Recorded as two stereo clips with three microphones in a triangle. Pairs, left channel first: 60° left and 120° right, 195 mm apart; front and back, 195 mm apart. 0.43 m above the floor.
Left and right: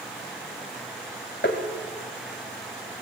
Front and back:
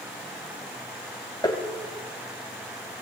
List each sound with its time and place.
1.4 s tapping: 65° left, 2.5 m